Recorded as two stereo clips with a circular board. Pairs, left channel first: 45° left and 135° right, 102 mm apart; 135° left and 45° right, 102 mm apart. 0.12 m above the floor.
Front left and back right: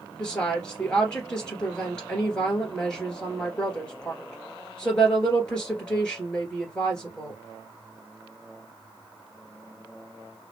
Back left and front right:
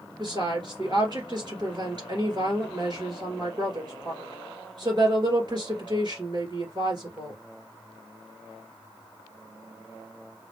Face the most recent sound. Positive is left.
turn(degrees=-35)